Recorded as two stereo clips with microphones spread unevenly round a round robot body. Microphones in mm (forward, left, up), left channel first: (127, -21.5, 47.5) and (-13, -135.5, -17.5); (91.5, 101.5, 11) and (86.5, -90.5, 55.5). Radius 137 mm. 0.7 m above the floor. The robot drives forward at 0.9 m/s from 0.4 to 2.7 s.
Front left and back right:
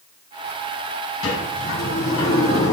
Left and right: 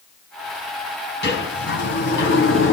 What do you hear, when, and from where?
1.2 s a sliding door: 65° left, 4.5 m; by 2.7 s 85° left, 4 m